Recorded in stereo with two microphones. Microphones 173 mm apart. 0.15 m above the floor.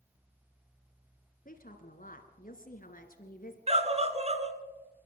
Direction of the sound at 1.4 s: 55° left (ahead or behind).